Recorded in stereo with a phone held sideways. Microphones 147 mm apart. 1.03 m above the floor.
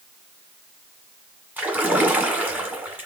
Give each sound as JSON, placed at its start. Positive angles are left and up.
{"t": 1.6, "sound": "a splash", "side_deg": -10, "distance_m": 1.6}